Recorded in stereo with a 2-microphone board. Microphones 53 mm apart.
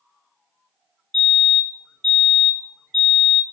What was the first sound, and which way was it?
A fire alarm, 25° left (ahead or behind).